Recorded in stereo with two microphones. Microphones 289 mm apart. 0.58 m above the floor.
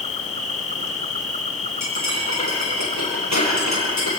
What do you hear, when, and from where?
0.0 s an insect: 25° left (ahead or behind), 1.2 m
1.8 s cutlery clinking: 70° left (ahead or behind), 8.5 m